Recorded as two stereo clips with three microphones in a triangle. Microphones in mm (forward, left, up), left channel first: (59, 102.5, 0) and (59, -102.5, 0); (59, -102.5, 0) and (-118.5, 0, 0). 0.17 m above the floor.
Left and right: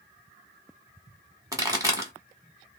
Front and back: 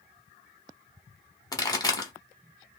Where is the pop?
55° right, 1.0 m.